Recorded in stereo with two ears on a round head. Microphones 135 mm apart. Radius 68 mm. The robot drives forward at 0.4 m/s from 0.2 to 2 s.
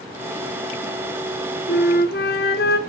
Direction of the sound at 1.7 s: 80° left.